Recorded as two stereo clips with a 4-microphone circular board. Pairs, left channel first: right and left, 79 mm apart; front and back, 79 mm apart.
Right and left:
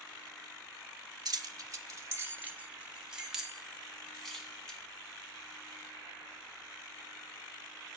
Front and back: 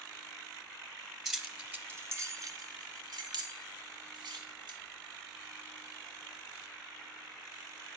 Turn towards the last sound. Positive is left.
turn(degrees=-170)